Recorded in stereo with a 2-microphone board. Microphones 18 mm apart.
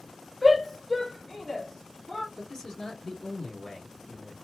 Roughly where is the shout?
Centre.